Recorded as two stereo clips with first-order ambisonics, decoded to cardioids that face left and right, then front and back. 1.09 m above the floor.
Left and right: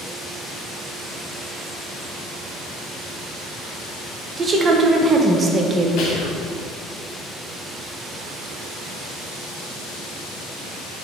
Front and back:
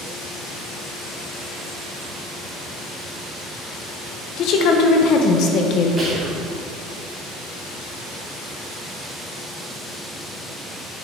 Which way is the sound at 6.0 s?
110° left.